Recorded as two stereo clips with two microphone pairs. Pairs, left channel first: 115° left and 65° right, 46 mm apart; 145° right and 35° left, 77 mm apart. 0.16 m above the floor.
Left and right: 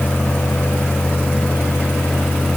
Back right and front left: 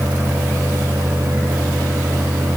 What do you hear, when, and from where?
Only background noise.